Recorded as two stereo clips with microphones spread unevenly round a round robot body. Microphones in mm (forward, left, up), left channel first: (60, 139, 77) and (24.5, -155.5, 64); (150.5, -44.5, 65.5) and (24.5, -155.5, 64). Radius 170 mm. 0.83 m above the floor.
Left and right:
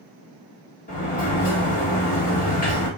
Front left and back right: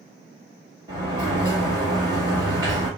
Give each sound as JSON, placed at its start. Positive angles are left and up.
{"t": 0.9, "sound": "a sliding door", "azimuth_deg": 145, "distance_m": 1.5}